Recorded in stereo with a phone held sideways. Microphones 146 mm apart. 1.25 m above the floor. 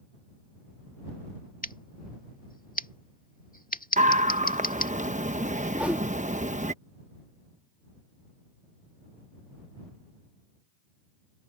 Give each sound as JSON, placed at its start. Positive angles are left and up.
{"t": 1.6, "sound": "scissors", "side_deg": 70}
{"t": 4.0, "sound": "a scream", "side_deg": -55}
{"t": 5.7, "sound": "a whoosh", "side_deg": -10}